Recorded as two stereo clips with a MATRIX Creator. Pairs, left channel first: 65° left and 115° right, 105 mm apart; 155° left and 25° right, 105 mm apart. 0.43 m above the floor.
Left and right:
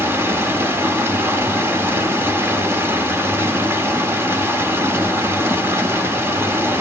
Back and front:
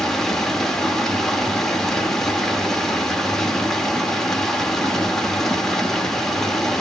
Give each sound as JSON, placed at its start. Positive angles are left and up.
{"t": 0.0, "sound": "running water", "azimuth_deg": -125, "distance_m": 0.9}